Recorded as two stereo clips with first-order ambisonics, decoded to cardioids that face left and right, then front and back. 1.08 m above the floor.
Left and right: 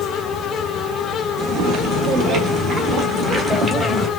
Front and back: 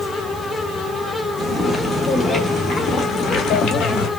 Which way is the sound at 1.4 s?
90° right.